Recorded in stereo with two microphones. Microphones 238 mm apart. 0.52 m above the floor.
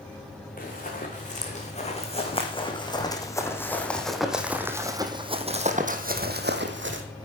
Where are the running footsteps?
35° left (ahead or behind), 3 m; by 7.0 s 55° right (ahead or behind), 1.8 m.